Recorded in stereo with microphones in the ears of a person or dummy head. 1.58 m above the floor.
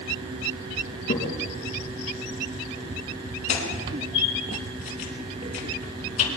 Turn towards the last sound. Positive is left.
turn(degrees=40)  # may be behind; listen again after turning